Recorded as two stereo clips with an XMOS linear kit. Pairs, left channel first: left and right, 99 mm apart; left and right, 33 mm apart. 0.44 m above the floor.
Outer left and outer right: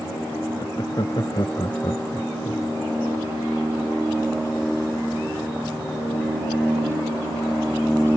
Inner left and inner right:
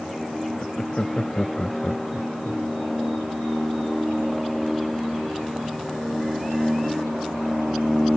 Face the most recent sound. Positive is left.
turn(degrees=55)  # may be behind; listen again after turning